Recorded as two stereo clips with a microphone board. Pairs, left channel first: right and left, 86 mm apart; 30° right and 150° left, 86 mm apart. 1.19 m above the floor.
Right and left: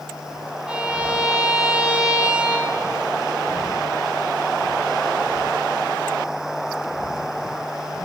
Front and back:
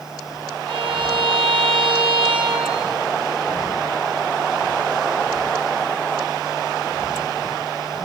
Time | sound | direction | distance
0.7 | a violin | 170° left | 4.5 m